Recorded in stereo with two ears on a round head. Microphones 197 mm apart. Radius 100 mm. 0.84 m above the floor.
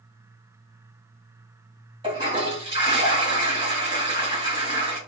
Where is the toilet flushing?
20° right (ahead or behind), 1.8 m.